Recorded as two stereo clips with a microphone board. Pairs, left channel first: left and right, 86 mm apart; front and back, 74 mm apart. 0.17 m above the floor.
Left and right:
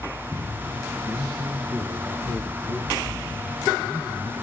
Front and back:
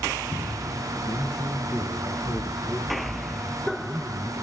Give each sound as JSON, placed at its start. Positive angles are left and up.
{"t": 1.0, "sound": "a man speaking", "azimuth_deg": -30, "distance_m": 3.5}